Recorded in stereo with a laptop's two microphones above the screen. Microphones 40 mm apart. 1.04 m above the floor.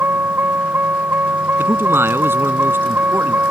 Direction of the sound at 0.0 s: 65° right (ahead or behind).